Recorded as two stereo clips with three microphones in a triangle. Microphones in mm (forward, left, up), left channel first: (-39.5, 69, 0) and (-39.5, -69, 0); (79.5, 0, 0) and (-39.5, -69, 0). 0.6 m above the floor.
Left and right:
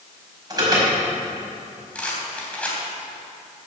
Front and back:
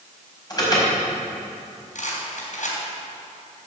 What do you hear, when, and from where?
0.5 s an alarm: 30° right, 5 m
1.9 s a rattle: 10° left, 3.5 m